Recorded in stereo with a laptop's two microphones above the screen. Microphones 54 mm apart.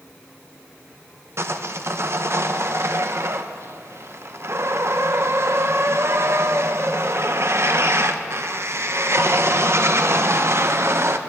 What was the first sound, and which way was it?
Sawing, 55° right (ahead or behind).